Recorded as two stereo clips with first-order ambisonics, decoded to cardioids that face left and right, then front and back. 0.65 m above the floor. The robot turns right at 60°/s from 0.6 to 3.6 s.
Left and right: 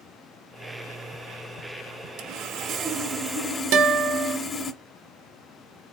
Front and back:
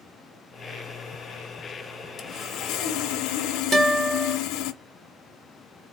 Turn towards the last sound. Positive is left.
turn(degrees=-110)